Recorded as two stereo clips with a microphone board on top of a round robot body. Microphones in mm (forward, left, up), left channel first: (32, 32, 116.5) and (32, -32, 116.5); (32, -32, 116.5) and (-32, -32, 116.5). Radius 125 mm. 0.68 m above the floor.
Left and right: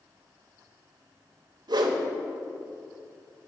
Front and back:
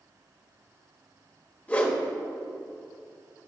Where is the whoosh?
70° right, 1.0 m.